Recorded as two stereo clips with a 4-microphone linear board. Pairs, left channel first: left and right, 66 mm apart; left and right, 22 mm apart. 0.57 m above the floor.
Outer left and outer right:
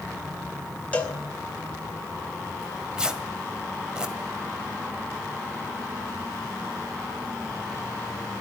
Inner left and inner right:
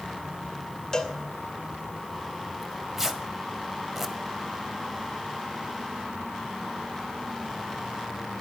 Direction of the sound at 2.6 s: 15° right (ahead or behind).